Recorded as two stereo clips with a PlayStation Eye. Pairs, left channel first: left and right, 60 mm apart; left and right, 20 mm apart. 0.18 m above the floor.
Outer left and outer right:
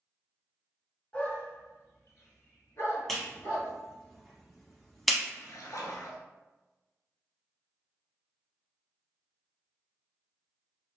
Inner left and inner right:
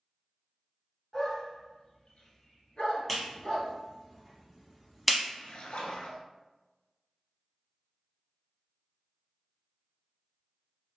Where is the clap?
5° left (ahead or behind), 1.0 m.